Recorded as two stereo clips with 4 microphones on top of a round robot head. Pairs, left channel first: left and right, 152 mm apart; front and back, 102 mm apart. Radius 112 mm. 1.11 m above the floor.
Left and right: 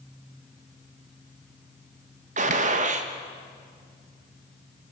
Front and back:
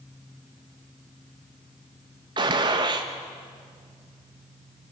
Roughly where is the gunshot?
Behind right.